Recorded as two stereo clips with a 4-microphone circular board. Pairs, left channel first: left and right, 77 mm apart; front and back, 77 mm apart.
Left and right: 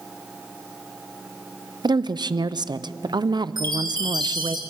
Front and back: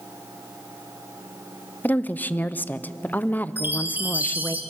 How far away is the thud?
I don't hear a thud.